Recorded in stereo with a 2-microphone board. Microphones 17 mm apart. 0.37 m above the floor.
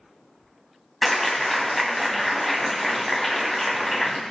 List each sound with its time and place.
1.0 s a clap: 10° left (ahead or behind), 2.5 m